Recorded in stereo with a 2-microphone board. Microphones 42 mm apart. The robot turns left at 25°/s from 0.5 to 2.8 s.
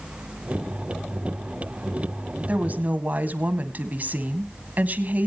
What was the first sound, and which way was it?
A woman speaking, 35° right (ahead or behind).